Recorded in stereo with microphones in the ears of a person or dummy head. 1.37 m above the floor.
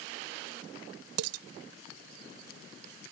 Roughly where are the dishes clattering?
Right.